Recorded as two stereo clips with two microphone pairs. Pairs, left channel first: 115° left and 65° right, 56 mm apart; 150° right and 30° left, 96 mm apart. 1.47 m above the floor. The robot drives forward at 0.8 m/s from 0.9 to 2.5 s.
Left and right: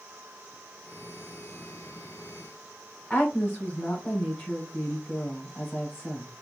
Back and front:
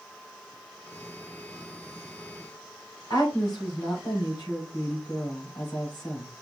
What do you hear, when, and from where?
3.1 s a woman speaking: 170° left, 3.5 m